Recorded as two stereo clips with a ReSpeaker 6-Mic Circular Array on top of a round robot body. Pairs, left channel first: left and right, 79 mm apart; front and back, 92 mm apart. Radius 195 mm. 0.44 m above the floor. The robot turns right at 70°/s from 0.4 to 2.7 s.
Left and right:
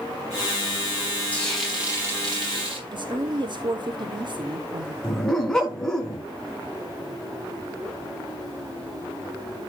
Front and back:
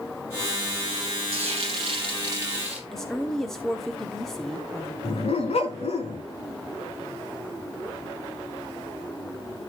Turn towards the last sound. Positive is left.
turn(degrees=5)